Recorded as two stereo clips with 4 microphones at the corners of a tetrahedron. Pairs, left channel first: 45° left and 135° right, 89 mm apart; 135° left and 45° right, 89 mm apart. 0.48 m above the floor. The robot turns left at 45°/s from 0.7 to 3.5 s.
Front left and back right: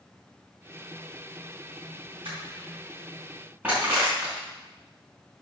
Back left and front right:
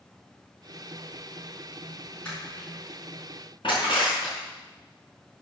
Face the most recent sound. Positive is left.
turn(degrees=155)